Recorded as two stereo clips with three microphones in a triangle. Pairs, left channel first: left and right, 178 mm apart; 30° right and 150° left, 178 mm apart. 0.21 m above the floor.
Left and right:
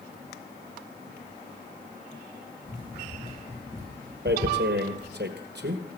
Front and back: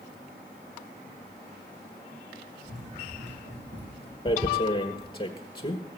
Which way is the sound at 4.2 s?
90° right.